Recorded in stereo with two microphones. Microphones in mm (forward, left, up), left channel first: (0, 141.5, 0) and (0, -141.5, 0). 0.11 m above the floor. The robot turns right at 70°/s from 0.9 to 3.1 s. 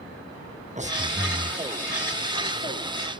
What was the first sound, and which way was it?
Breathing, 30° right.